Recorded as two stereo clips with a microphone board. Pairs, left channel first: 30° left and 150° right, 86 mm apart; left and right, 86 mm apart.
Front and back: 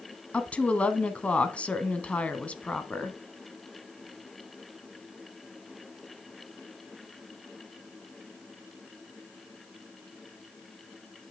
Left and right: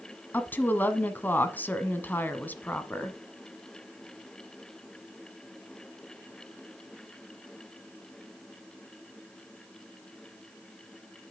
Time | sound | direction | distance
0.3 | a woman speaking | 80° left | 1.1 m